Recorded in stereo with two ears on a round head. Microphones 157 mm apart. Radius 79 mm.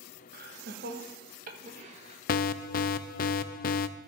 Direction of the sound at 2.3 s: 50° left (ahead or behind).